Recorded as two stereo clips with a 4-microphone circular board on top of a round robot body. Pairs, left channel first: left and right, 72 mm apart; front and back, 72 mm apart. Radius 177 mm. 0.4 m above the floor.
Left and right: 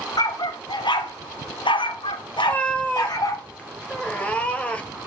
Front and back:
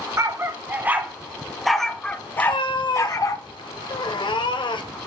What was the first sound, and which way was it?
A dog barking, 125° left.